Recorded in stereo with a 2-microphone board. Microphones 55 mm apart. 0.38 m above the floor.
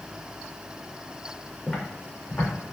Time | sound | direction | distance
1.7 | footsteps | 25° left (ahead or behind) | 1.3 m